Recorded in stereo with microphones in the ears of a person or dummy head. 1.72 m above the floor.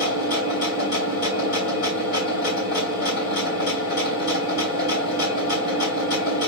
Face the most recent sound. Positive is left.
turn(degrees=50)  # may be behind; listen again after turning